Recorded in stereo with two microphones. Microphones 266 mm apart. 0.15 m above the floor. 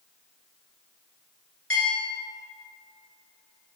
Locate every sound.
1.7 s a bell: 55° left (ahead or behind), 1.5 m